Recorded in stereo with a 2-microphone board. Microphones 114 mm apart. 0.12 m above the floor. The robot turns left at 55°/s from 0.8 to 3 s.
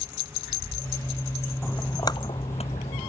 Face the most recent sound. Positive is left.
turn(degrees=80)